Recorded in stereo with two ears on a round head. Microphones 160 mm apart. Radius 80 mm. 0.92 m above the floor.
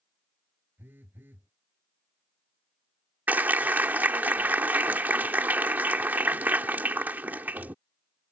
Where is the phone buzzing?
10° right (ahead or behind).